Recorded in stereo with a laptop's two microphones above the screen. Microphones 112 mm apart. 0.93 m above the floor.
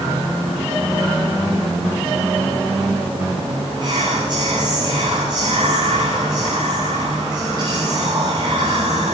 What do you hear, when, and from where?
3.8 s whispering: 45° right (ahead or behind), 7.5 m